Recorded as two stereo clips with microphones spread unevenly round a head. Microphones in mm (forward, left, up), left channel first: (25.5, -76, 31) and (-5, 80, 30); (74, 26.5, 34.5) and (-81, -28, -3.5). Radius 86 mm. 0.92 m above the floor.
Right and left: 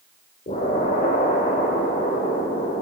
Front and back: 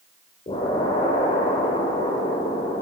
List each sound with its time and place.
0.5 s an explosion: 35° right, 2.5 m